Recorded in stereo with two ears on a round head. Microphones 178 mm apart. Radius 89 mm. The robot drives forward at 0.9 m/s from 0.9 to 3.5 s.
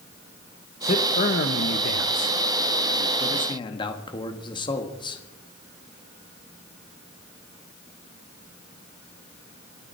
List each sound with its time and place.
0.8 s a man speaking: 35° left (ahead or behind), 1.2 m; by 5.2 s 25° left (ahead or behind), 1.5 m